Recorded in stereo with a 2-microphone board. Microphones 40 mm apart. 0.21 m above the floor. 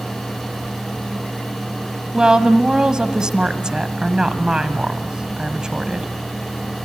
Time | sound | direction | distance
2.1 | a woman speaking | 20° right (ahead or behind) | 1.3 m